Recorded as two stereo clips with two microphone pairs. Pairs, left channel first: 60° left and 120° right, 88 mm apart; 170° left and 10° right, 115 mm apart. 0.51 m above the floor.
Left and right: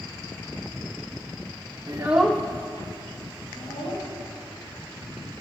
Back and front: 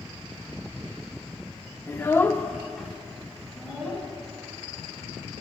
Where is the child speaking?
135° right, 0.6 m; by 4.0 s 75° left, 2.5 m.